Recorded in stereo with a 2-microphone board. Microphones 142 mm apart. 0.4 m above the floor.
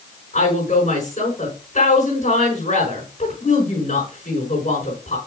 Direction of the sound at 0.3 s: 60° left (ahead or behind).